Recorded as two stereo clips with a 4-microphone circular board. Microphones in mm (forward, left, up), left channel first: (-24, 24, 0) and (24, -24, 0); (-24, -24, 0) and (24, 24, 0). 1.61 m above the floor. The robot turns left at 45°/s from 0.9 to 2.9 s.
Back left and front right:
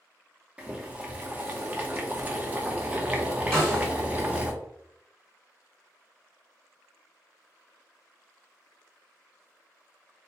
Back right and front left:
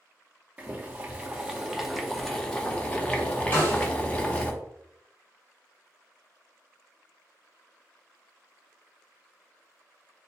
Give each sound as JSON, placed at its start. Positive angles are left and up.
{"t": 0.6, "sound": "boiling", "azimuth_deg": 5, "distance_m": 0.7}
{"t": 3.5, "sound": "a snare drum", "azimuth_deg": -150, "distance_m": 1.4}